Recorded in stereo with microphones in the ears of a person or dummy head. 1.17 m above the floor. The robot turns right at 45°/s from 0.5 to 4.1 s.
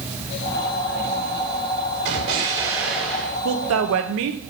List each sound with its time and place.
2.0 s an explosion: 40° right, 2.5 m; by 3.4 s 20° left, 2.5 m
3.5 s a woman speaking: 65° right (ahead or behind), 1.1 m; by 4.4 s 70° right (ahead or behind), 1.1 m